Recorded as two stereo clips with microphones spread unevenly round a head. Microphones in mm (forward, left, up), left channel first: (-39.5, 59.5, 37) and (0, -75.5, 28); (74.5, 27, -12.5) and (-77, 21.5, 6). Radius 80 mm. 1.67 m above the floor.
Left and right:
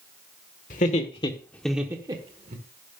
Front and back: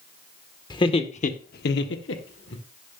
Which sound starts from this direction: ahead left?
Laughter, at 0.7 s.